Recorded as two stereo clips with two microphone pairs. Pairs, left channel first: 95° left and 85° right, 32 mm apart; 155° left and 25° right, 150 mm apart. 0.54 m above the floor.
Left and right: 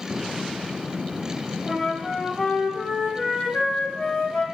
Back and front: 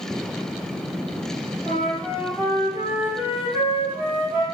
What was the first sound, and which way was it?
A flute, 45° left.